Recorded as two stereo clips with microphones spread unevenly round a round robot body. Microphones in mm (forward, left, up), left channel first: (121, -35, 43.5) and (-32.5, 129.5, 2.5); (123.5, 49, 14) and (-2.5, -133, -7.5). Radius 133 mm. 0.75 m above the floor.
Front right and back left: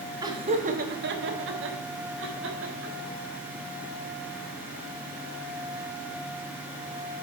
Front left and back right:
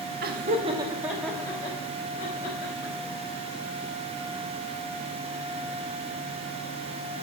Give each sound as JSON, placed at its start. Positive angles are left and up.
{"t": 0.2, "sound": "laughter", "azimuth_deg": -160, "distance_m": 1.0}